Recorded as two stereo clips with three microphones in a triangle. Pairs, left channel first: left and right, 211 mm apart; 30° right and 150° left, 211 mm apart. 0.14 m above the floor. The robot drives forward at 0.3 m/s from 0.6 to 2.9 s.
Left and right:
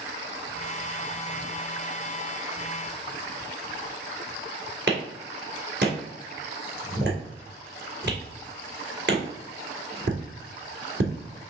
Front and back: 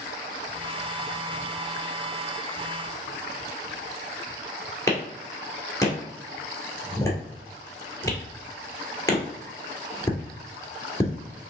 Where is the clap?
105° right, 1.8 m.